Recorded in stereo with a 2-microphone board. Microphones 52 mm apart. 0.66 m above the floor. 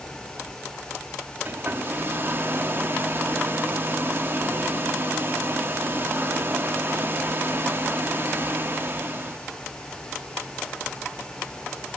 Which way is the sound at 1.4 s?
45° right (ahead or behind).